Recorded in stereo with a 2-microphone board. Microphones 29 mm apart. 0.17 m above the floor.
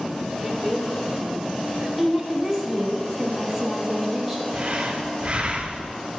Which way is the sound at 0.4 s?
5° right (ahead or behind).